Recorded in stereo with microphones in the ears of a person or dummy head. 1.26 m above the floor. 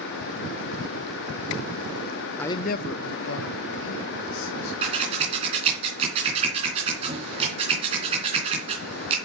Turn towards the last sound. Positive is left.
turn(degrees=-25)  # may be behind; listen again after turning